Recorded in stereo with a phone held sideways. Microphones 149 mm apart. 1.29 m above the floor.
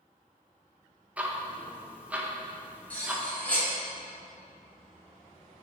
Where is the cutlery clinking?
10° left (ahead or behind), 1.8 m.